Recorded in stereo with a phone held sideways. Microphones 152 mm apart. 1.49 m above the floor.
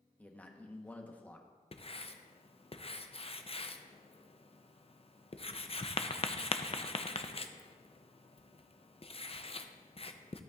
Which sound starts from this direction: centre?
A man speaking, at 0.2 s.